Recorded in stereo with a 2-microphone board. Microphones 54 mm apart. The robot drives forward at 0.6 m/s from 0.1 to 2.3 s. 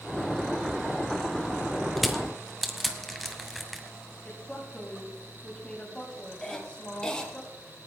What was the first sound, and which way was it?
Crushing, centre (ahead or behind).